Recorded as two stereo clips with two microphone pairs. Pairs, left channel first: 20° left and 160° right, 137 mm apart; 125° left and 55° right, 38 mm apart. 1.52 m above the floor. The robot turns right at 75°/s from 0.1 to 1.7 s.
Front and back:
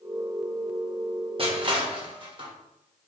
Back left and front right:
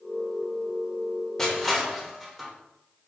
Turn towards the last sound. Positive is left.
turn(degrees=-135)